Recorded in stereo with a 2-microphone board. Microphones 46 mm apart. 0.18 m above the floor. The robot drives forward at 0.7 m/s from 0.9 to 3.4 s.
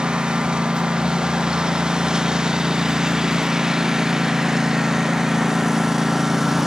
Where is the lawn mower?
20° right (ahead or behind); by 6.7 s 5° right (ahead or behind).